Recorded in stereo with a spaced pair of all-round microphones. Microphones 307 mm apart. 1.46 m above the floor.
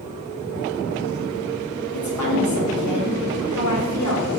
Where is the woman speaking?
65° left (ahead or behind), 0.8 m.